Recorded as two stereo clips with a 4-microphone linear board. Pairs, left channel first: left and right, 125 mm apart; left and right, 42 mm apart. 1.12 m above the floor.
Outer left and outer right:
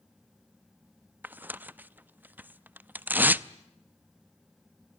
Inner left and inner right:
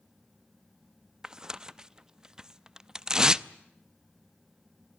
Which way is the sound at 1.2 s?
15° right (ahead or behind).